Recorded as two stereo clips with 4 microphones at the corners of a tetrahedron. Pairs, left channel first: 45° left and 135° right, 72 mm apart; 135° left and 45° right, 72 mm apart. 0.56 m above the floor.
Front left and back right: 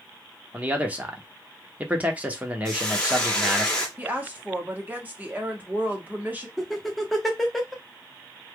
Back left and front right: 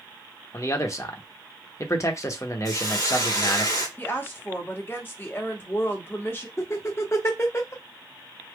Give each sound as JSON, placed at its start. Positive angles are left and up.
{"t": 0.5, "sound": "a man speaking", "azimuth_deg": 160, "distance_m": 0.9}
{"t": 2.6, "sound": "a hiss", "azimuth_deg": 120, "distance_m": 1.5}
{"t": 4.0, "sound": "a woman speaking", "azimuth_deg": 170, "distance_m": 1.2}
{"t": 6.6, "sound": "laughter", "azimuth_deg": 130, "distance_m": 0.7}